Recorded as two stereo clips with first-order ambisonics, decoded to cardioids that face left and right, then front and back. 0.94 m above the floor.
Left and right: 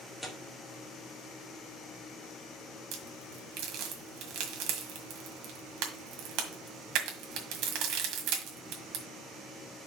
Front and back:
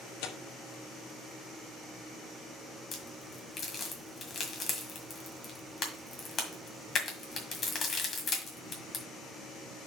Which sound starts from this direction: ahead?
Tearing paper, at 0.2 s.